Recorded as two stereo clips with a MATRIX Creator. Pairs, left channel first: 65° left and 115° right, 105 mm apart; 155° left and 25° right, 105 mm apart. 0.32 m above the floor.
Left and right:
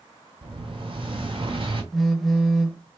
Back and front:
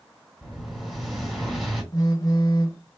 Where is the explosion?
115° right, 2.5 m.